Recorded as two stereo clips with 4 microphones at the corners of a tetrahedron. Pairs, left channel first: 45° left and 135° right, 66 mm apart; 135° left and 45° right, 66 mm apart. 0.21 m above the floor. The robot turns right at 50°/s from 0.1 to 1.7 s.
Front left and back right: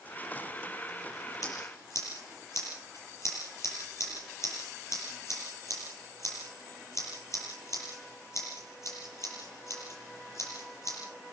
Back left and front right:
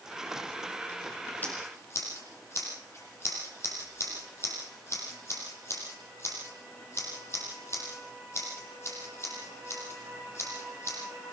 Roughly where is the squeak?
No squeak in this recording.